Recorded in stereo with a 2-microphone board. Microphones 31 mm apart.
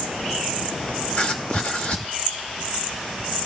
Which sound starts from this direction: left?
Writing, at 1.1 s.